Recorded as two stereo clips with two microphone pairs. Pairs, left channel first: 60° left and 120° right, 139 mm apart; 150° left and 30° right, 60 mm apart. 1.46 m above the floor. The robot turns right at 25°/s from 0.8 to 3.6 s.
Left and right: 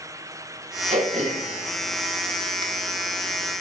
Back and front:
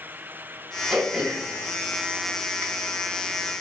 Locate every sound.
0.9 s throat clearing: 110° right, 2 m; by 2.6 s 70° right, 2 m